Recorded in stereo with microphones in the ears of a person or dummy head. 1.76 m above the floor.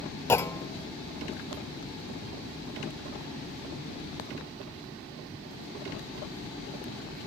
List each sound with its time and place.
0.3 s a clunk: 15° left (ahead or behind), 0.5 m